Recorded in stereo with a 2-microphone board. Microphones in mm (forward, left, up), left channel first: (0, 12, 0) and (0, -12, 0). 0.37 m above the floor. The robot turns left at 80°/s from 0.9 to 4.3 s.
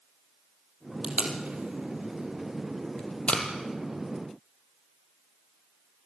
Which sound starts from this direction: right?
Tape being pulled, at 1.0 s.